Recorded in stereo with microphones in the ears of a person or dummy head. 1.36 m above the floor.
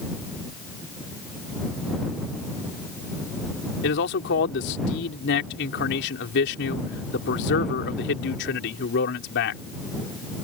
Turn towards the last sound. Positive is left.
turn(degrees=60)  # may be behind; listen again after turning